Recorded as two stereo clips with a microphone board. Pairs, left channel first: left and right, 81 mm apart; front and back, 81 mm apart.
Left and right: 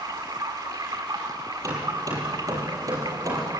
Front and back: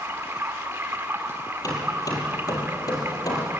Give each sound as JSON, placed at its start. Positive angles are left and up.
{"t": 0.0, "sound": "running water", "azimuth_deg": -120, "distance_m": 2.0}
{"t": 1.6, "sound": "hammering", "azimuth_deg": -45, "distance_m": 6.0}